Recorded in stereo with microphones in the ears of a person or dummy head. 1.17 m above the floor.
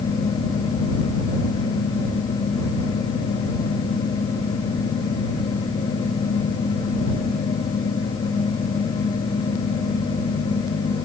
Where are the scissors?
I don't hear scissors.